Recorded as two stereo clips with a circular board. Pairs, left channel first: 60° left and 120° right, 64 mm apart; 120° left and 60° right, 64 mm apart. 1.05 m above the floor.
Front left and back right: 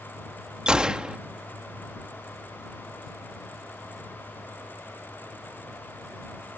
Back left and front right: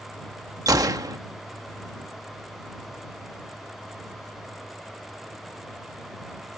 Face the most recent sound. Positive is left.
turn(degrees=-40)